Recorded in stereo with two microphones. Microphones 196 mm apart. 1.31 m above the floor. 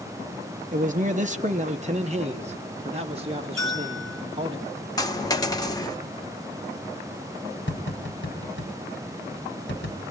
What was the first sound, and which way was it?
A man speaking, 40° right (ahead or behind).